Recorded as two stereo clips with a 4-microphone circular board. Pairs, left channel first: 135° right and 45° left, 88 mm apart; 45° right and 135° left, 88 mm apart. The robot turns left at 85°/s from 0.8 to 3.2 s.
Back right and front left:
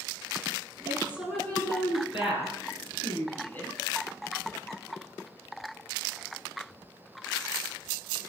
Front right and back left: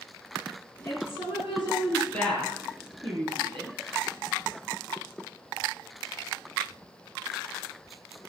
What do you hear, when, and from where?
0.8 s a woman speaking: 5° right, 8.5 m; by 3.8 s 155° left, 8.5 m